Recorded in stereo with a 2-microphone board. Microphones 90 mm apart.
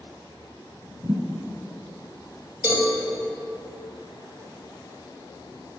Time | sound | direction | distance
1.0 | a thud | 45° right (ahead or behind) | 1.2 m
2.6 | a cowbell | 15° right (ahead or behind) | 2 m